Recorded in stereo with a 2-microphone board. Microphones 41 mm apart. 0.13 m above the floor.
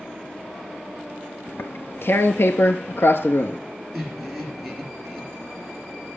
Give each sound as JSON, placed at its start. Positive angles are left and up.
{"t": 1.5, "sound": "tearing paper", "side_deg": 65, "distance_m": 0.8}
{"t": 3.9, "sound": "laughter", "side_deg": 0, "distance_m": 3.0}